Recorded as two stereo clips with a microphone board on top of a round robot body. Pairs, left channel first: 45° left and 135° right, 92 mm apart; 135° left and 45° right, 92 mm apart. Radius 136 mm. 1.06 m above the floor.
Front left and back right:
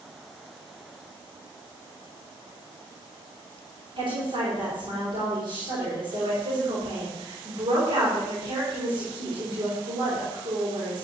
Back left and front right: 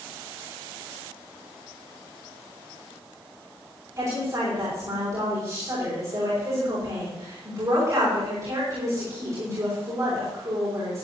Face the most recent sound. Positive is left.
turn(degrees=-100)